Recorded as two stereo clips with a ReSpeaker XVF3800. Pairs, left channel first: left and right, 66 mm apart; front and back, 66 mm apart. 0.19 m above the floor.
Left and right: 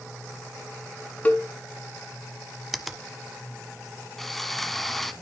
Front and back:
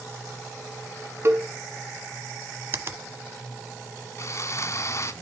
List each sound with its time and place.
1.2 s a cowbell: 150° left, 1.3 m
2.7 s a finger snap: 175° right, 0.9 m
4.2 s sawing: 5° left, 0.9 m